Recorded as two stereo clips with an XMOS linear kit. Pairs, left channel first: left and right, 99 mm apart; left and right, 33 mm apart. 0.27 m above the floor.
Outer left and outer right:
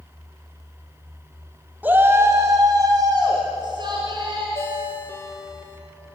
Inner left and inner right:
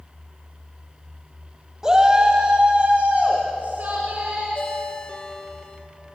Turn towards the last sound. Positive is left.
turn(degrees=30)  # may be behind; listen again after turning